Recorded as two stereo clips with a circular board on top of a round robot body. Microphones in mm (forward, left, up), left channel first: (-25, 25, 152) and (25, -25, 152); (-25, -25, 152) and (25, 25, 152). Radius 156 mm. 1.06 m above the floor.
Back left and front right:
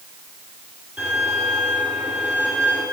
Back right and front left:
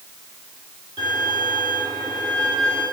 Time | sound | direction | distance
1.0 | a violin | 30° left | 8 m